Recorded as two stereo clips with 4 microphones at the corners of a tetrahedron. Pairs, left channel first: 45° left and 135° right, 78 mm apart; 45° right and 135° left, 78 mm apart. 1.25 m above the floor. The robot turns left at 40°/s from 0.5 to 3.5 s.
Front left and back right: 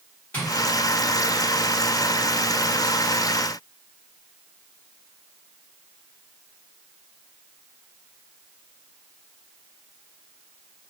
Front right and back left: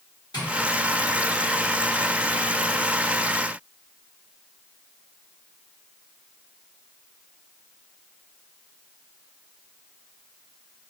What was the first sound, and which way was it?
Tapping, 25° right.